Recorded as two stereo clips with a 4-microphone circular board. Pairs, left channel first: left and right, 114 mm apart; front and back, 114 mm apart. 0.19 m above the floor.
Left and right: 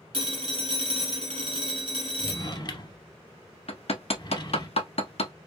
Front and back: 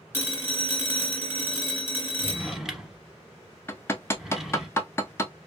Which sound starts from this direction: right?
A phone ringing, at 0.1 s.